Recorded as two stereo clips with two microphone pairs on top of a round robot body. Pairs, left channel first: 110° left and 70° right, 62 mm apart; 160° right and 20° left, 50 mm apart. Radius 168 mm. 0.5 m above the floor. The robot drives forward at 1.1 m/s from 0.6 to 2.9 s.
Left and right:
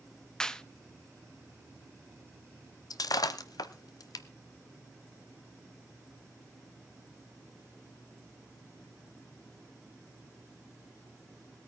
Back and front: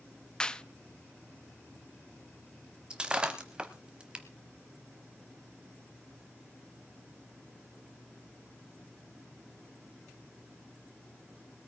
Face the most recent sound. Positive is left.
turn(degrees=95)